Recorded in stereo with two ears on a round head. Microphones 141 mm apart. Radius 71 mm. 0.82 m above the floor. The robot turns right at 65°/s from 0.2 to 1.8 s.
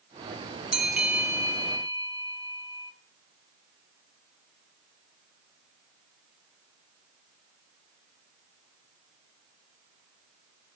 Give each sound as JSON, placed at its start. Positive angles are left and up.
{"t": 0.7, "sound": "a bell", "side_deg": -5, "distance_m": 0.6}